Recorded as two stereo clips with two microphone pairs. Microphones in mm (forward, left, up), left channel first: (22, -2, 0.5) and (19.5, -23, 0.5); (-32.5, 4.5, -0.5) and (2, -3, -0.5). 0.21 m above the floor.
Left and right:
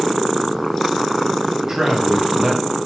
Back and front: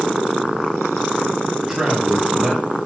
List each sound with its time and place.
1.6 s a man speaking: 75° right, 1.2 m